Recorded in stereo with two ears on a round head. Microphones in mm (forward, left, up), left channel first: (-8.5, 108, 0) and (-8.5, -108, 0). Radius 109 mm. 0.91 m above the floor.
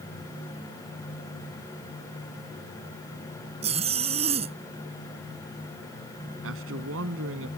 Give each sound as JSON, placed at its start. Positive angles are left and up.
{"t": 3.6, "sound": "a zipper", "side_deg": -25}
{"t": 6.4, "sound": "a man speaking", "side_deg": -55}